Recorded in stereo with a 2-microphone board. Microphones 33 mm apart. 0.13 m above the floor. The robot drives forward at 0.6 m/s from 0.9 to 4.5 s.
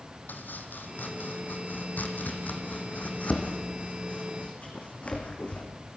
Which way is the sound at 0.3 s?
75° left (ahead or behind).